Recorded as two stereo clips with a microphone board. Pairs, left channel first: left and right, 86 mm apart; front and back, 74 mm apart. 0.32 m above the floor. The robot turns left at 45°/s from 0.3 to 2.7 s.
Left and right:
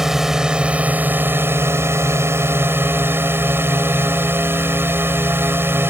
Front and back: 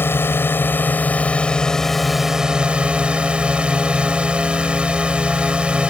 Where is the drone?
10° right; by 5.9 s 115° right.